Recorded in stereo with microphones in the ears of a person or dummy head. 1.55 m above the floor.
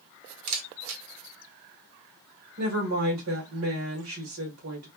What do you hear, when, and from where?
0.5 s a camera shutter: 80° right, 1.2 m
2.6 s a woman speaking: 70° right (ahead or behind), 1.8 m